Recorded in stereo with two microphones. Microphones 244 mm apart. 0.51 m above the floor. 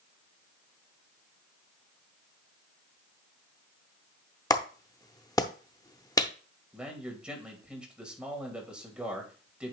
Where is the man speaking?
5° right (ahead or behind), 2.5 m.